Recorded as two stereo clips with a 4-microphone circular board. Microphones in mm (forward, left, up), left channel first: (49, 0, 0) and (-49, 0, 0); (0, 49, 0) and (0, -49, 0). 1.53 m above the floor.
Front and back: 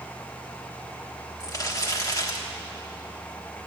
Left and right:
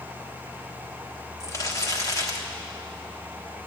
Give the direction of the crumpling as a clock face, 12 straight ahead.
11 o'clock.